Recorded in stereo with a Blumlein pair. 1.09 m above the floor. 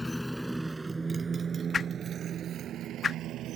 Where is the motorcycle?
10° left; by 3.6 s 35° right.